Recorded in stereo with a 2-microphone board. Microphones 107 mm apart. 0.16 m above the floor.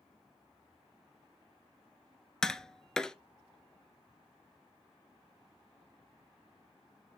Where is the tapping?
5° left (ahead or behind), 0.8 m.